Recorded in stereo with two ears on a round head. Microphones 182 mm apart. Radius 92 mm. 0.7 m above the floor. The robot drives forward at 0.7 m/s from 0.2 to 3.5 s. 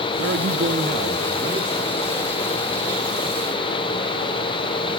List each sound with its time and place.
0.2 s a man speaking: 50° right (ahead or behind), 0.8 m; by 1.9 s 25° right (ahead or behind), 1.4 m